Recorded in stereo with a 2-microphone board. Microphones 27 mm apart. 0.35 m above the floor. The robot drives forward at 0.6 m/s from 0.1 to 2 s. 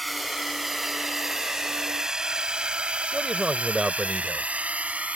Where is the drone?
Centre (ahead or behind); by 5.2 s 60° right (ahead or behind).